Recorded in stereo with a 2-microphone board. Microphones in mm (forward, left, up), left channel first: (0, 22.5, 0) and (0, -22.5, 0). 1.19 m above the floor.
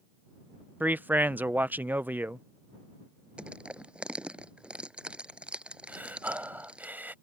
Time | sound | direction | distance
0.8 | a man speaking | 45° right (ahead or behind) | ?
3.4 | crushing | 20° right (ahead or behind) | ?
5.9 | breathing | 45° right (ahead or behind) | ?